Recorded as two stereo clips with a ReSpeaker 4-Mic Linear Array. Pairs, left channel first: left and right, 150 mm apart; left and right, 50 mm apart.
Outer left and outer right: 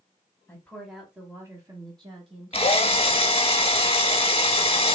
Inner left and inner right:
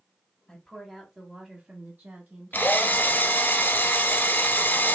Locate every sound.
0.5 s a woman speaking: 15° left (ahead or behind), 1.1 m; by 3.3 s 50° right (ahead or behind), 1.9 m
2.5 s a drill: 40° left (ahead or behind), 0.6 m